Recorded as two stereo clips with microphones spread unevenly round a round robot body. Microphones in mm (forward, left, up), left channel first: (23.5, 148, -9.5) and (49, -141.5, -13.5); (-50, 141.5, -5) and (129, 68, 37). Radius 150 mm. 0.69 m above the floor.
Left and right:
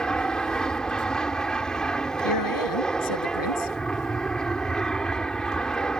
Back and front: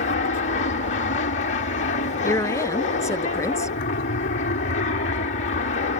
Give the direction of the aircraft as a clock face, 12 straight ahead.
6 o'clock.